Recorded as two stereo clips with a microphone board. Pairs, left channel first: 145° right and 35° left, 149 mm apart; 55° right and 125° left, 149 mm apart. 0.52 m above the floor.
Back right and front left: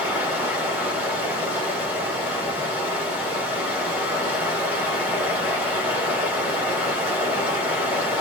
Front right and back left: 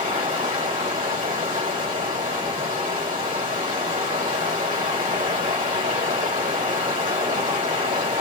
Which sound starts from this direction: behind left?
Running water, at 0.0 s.